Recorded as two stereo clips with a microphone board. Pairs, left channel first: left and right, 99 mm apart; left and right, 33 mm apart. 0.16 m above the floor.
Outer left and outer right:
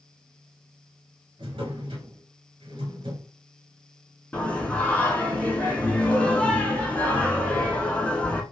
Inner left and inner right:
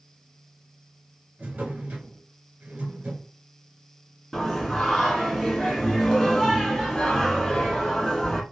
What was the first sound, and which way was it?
A drawer, 55° right (ahead or behind).